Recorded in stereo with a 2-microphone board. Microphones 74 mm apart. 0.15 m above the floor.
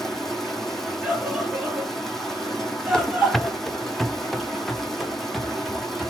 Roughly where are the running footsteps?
Centre.